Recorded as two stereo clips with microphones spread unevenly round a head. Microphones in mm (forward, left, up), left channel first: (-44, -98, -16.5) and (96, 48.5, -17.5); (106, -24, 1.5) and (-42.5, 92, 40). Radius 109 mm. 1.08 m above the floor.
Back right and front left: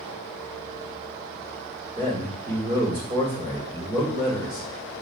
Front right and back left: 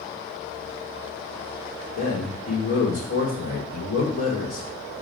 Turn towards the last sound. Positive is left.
turn(degrees=0)